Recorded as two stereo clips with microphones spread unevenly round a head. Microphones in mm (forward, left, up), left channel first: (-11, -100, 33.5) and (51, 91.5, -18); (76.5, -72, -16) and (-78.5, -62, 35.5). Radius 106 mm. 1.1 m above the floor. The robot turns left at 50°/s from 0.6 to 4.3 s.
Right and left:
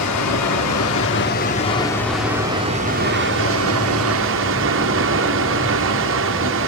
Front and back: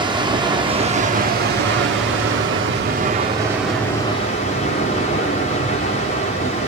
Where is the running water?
120° right, 3 m; by 6.7 s 55° left, 3 m.